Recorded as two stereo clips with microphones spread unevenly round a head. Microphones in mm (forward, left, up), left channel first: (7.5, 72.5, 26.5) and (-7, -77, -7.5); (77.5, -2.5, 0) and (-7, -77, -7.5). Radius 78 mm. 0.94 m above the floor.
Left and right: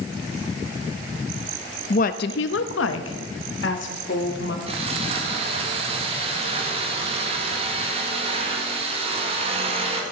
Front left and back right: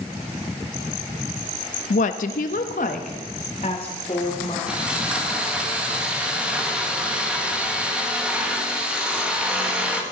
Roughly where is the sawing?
Ahead right.